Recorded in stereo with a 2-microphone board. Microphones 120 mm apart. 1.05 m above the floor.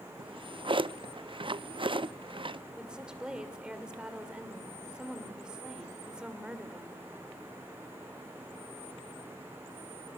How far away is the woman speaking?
About 3 m.